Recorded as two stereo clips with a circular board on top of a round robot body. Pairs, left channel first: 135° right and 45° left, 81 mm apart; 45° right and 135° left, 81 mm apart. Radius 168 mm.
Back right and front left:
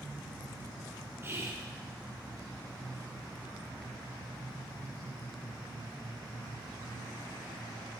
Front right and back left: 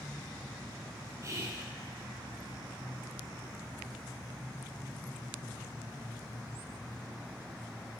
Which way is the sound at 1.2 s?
95° left.